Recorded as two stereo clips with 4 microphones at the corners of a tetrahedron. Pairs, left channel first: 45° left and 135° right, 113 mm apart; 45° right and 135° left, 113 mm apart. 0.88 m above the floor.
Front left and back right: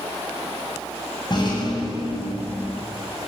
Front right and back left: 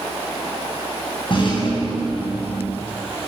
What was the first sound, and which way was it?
A rattle, 5° right.